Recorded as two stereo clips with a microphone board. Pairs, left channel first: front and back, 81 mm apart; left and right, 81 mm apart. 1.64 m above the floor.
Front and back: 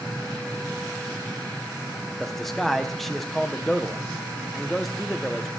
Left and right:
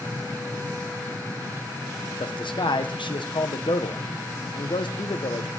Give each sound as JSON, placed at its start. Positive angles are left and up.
{"t": 2.2, "sound": "a man speaking", "azimuth_deg": 90, "distance_m": 1.1}